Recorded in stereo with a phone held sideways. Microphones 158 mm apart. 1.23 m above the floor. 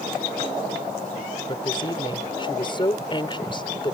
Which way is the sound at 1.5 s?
30° left (ahead or behind).